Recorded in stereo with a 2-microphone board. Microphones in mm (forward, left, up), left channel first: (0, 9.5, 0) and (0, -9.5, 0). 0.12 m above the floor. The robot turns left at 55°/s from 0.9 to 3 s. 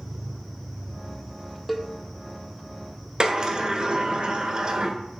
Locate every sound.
1.7 s a cowbell: centre (ahead or behind), 0.5 m; by 1.9 s 10° left (ahead or behind), 0.5 m
3.2 s a sliding door: 40° right (ahead or behind), 0.6 m